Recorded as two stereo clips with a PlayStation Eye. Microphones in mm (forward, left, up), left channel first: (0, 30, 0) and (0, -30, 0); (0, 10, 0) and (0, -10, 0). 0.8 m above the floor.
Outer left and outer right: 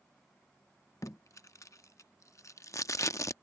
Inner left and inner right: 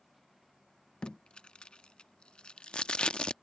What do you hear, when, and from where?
1.0 s tape being pulled: 60° left (ahead or behind)